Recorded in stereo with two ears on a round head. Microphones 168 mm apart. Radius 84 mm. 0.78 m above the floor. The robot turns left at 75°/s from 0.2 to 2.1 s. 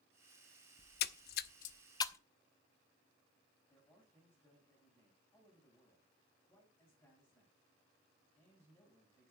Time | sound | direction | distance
0.8 | a splash | 50° left (ahead or behind) | 0.6 m
3.7 | a man speaking | 15° left (ahead or behind) | 6 m